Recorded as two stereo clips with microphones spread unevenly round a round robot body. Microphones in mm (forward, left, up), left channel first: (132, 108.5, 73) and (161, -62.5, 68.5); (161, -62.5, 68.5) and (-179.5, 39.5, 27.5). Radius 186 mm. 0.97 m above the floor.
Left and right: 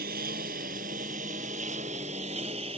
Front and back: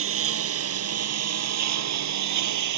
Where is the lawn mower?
140° right; by 2.8 s 155° right.